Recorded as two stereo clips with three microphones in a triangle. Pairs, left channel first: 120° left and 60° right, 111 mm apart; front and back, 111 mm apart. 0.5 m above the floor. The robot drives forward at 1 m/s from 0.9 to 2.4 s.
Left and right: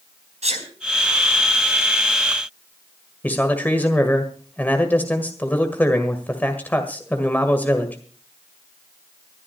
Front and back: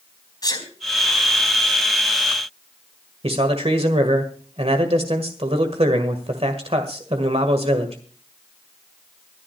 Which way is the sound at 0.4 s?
55° right.